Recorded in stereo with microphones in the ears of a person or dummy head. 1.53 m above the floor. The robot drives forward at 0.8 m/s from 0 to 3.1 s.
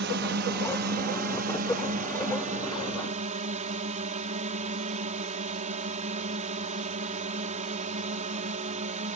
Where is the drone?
65° right (ahead or behind); by 9.2 s 40° right (ahead or behind).